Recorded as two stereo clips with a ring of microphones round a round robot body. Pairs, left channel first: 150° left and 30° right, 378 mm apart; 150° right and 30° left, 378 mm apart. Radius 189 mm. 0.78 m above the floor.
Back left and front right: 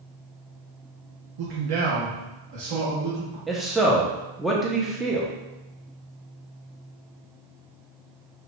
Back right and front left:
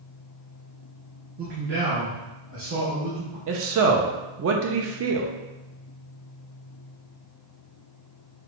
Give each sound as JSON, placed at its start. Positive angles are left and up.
{"t": 1.4, "sound": "a man speaking", "azimuth_deg": -35, "distance_m": 0.7}
{"t": 3.5, "sound": "a man speaking", "azimuth_deg": 60, "distance_m": 0.5}